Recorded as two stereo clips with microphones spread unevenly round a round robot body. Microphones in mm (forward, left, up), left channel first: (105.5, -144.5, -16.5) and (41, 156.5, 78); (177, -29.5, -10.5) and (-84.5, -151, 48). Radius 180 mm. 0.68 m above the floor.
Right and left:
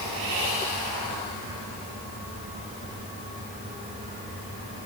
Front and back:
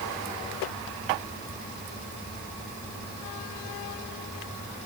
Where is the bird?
I don't hear a bird.